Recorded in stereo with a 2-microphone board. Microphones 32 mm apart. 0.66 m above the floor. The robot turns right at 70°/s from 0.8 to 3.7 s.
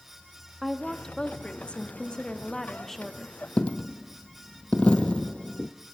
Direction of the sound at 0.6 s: 20° left.